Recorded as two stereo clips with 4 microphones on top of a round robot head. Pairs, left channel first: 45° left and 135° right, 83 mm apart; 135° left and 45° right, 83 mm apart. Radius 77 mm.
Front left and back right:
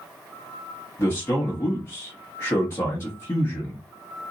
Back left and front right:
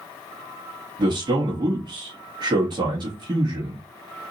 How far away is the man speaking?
About 1.0 m.